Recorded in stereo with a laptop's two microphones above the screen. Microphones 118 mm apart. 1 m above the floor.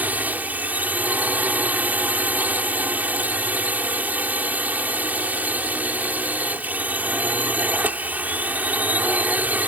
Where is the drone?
15° right (ahead or behind).